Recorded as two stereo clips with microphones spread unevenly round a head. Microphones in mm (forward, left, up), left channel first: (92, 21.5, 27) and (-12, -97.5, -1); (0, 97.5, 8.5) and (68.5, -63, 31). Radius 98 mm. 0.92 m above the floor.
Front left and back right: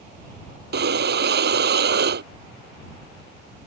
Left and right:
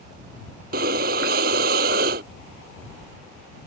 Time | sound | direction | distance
0.7 | breathing | 115° right | ?